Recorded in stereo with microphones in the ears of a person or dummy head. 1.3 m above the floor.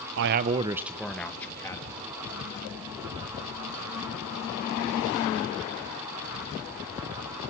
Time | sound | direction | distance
0.2 | a man speaking | 70° right (ahead or behind) | 0.8 m